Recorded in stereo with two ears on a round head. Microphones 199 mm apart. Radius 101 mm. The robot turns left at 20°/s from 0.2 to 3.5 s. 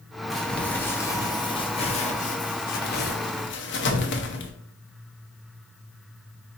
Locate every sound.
0.3 s crumpling: centre (ahead or behind), 0.7 m; by 4.5 s 55° left (ahead or behind), 0.7 m